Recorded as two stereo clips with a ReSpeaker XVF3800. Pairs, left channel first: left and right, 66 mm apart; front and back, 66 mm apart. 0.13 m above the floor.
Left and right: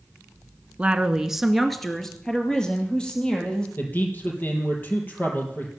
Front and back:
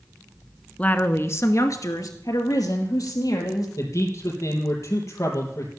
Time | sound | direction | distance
0.8 | a woman speaking | 45° right | 1.2 m
3.8 | a man speaking | 30° left | 4 m